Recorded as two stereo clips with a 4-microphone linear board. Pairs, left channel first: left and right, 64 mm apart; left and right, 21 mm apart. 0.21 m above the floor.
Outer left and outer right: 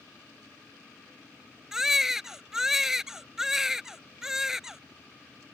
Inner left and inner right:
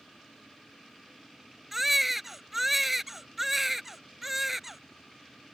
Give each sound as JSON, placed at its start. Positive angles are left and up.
{"t": 1.7, "sound": "a baby crying", "side_deg": -10}